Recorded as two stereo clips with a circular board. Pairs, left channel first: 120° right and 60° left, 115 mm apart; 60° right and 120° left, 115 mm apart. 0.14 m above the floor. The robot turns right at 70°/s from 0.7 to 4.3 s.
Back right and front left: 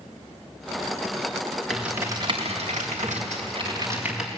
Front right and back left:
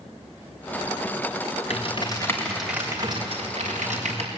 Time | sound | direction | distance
1.7 | typing on a keyboard | 30° right | 5 m